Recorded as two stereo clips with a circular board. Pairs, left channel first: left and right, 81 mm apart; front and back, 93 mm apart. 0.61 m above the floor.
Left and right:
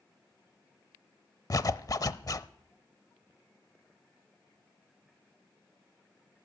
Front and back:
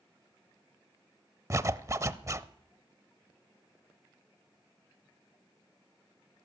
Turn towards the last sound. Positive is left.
turn(degrees=125)